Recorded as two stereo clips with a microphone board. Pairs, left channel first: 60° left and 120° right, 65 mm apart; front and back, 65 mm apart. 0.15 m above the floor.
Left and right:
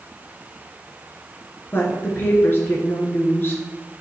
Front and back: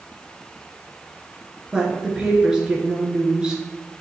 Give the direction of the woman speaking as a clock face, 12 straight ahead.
8 o'clock.